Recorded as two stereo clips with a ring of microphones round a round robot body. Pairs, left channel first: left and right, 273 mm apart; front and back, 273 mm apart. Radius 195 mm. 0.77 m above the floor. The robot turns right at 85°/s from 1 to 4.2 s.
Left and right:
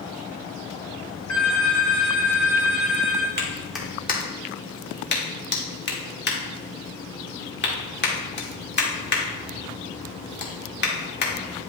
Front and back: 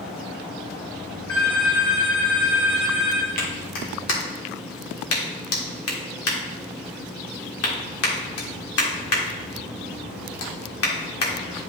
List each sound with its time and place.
1.3 s a phone ringing: 75° left, 3.5 m; by 3.3 s 115° right, 3.5 m
3.4 s a clap: 35° right, 1.8 m; by 11.3 s 35° left, 1.8 m